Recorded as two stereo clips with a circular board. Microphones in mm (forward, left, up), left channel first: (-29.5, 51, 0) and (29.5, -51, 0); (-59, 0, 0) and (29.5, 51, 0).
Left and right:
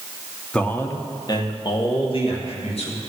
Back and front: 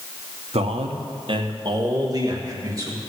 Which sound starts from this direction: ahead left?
A man speaking, at 0.5 s.